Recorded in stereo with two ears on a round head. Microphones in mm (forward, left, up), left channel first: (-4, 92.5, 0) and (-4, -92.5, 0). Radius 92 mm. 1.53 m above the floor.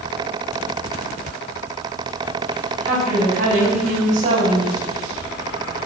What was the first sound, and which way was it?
A woman speaking, 40° right (ahead or behind).